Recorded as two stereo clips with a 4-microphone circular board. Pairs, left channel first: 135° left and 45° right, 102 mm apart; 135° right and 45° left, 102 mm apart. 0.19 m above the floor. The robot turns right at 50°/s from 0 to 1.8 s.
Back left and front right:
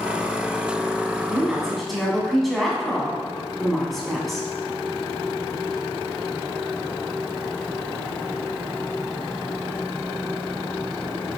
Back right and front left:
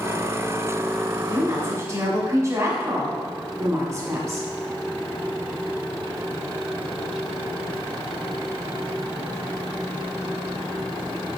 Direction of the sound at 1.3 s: 20° left.